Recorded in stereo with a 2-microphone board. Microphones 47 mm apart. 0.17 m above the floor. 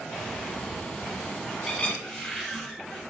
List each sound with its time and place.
0.1 s a bird: 20° left (ahead or behind), 1.0 m
2.0 s a cupboard door: 5° left (ahead or behind), 2 m